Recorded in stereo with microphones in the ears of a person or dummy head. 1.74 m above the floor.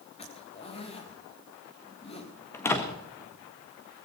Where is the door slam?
5° left (ahead or behind), 1.6 m.